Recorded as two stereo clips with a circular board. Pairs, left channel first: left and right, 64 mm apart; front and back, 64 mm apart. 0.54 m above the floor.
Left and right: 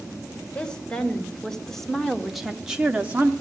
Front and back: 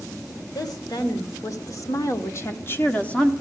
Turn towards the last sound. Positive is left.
turn(degrees=-65)